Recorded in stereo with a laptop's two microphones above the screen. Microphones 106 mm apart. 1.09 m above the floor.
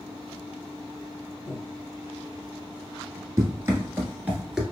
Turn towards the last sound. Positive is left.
turn(degrees=0)  # may be behind; listen again after turning